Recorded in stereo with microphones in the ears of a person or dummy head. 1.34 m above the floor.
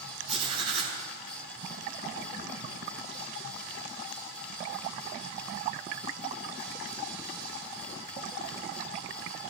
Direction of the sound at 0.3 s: 40° right (ahead or behind).